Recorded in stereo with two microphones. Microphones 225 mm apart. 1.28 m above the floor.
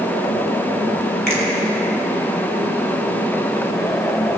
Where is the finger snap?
45° right (ahead or behind), 4.5 m.